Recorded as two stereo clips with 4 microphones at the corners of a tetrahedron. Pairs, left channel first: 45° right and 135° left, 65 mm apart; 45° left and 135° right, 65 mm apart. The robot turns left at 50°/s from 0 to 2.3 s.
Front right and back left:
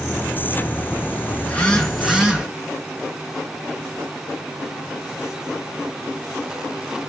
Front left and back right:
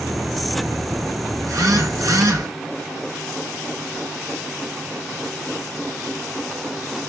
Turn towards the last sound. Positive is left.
turn(degrees=-155)